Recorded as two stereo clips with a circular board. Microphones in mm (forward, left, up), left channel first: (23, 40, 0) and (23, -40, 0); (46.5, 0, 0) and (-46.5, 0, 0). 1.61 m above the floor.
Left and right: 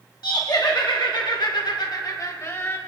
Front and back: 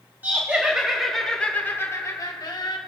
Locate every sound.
0.2 s laughter: 110° left, 1.4 m; by 2.8 s 30° left, 1.1 m